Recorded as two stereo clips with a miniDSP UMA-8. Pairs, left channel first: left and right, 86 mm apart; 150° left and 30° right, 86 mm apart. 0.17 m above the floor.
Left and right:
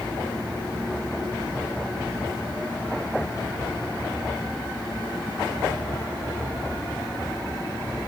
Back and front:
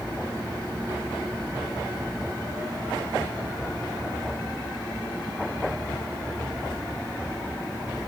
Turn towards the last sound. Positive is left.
No sound to turn to.